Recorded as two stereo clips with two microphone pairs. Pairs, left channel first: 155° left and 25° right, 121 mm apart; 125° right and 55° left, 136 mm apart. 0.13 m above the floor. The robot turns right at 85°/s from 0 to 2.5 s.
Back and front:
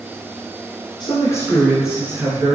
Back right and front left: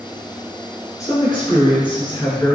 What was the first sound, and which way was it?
A man speaking, 175° left.